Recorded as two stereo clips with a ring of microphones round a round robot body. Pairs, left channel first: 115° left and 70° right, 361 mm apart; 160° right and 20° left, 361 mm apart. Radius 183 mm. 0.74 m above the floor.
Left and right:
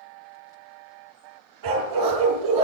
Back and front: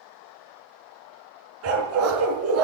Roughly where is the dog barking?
Ahead right.